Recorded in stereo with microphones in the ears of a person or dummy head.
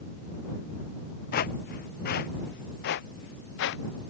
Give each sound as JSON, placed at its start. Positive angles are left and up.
{"t": 1.3, "sound": "footsteps", "side_deg": 50}